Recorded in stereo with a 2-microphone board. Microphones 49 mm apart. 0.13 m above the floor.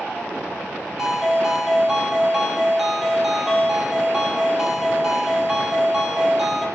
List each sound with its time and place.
1.0 s a ringtone: 5° right (ahead or behind), 1.3 m